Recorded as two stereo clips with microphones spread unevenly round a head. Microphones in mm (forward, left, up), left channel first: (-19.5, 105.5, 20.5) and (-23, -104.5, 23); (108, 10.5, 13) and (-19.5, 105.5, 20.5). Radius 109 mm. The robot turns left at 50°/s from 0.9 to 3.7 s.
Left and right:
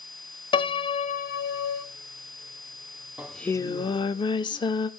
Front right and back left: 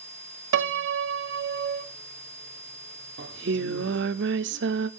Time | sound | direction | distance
0.5 | a piano | 160° left | 0.6 m
3.2 | singing | 175° right | 0.5 m